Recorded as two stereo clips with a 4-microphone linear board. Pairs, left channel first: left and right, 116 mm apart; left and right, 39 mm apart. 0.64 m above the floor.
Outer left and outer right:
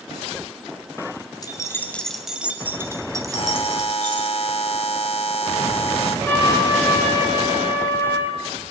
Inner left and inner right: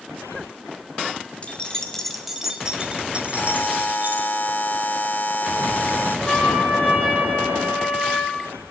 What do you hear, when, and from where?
1.4 s keys jangling: 35° left (ahead or behind), 1.8 m; by 4.3 s 45° right (ahead or behind), 4 m
3.3 s a buzzer: 60° left (ahead or behind), 1.5 m
6.3 s a trumpet: 15° left (ahead or behind), 8 m